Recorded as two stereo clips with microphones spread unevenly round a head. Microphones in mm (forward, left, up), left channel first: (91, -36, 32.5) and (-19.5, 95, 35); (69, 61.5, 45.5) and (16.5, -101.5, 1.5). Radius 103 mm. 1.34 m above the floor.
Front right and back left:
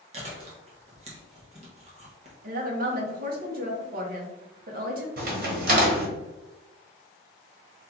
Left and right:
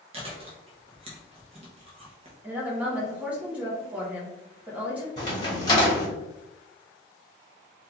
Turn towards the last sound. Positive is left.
turn(degrees=125)